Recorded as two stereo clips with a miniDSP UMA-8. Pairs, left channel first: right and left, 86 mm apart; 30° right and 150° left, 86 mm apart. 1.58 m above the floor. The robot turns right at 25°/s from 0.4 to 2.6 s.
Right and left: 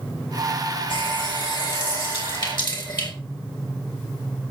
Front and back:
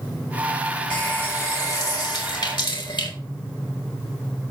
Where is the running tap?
100° right, 4 m; by 3.1 s 60° right, 4 m.